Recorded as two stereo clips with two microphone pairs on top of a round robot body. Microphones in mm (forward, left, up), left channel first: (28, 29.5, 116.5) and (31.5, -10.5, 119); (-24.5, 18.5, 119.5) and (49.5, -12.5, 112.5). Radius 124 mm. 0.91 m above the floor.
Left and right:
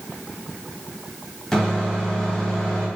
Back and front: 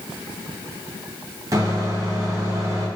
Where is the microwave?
20° left, 1.6 m.